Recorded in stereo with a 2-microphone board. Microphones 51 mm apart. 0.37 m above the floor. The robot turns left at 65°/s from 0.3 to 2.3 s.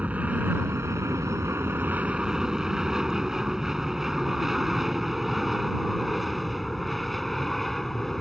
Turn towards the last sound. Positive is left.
turn(degrees=5)  # may be behind; listen again after turning